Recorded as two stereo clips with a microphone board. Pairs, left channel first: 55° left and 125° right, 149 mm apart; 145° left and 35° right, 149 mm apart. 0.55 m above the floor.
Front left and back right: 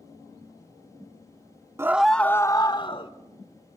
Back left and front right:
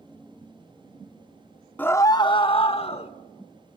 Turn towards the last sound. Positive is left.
turn(degrees=105)